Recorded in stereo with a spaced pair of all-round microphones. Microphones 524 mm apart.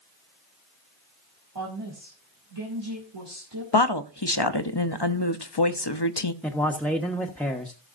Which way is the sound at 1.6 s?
50° right (ahead or behind).